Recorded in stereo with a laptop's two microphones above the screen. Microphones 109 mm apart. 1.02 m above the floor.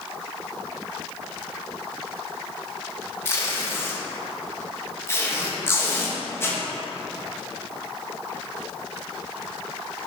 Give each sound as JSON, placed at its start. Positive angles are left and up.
{"t": 3.2, "sound": "tape being pulled", "side_deg": 20, "distance_m": 0.6}